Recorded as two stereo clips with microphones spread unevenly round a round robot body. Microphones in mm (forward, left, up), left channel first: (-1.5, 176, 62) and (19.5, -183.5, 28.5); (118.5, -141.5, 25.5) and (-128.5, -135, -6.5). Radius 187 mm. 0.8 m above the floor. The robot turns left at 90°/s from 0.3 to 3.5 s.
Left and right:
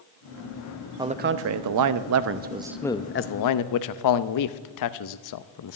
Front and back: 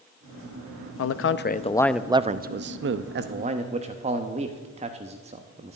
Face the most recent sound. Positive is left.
turn(degrees=120)